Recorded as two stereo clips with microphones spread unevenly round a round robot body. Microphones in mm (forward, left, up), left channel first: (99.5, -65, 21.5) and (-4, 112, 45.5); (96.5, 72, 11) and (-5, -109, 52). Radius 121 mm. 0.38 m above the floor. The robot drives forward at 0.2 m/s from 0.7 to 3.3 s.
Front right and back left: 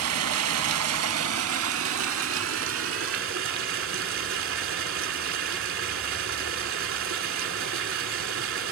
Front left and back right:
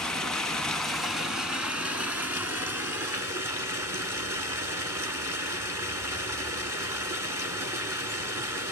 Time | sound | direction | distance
0.0 | running water | 150° left | 0.8 m